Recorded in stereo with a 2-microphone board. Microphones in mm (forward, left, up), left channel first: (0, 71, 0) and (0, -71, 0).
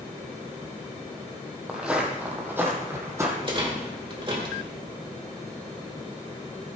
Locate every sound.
1.7 s footsteps: 5° right (ahead or behind), 1.9 m; by 3.3 s 20° right (ahead or behind), 2.5 m
3.4 s a rattle: 35° right (ahead or behind), 2 m